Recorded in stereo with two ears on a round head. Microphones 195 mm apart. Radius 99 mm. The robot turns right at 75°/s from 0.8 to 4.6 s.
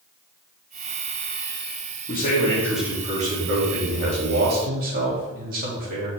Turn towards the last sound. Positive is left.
turn(degrees=-40)